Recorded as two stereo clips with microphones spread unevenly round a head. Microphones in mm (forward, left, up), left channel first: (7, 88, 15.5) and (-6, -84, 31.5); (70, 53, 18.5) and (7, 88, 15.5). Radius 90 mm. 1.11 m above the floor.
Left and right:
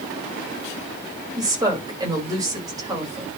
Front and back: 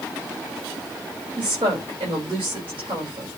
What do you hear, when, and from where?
1.4 s a woman speaking: 165° right, 4.5 m